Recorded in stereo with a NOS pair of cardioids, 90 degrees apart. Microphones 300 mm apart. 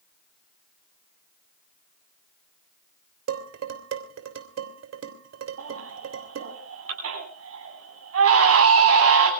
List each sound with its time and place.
3.3 s dishes clattering: 60° right, 3 m
5.6 s a baby crying: 50° right, 10 m